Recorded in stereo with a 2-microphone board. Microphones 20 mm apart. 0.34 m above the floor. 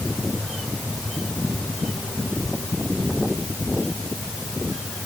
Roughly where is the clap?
I don't hear a clap.